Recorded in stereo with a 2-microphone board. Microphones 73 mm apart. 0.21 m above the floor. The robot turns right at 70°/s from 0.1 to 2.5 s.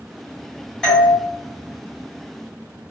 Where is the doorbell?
5° left (ahead or behind), 1.9 m; by 1.1 s 15° left (ahead or behind), 1.9 m.